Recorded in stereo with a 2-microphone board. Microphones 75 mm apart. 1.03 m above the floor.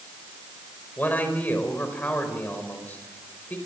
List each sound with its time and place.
1.0 s a man speaking: 20° left (ahead or behind), 4.5 m